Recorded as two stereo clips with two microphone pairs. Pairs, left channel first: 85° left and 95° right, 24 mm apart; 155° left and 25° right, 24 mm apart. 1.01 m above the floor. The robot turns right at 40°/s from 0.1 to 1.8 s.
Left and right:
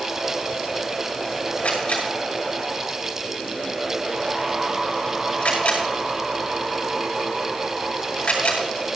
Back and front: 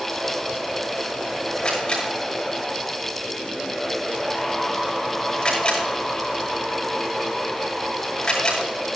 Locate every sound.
1.6 s a camera shutter: 95° left, 7 m; by 8.6 s 105° left, 7 m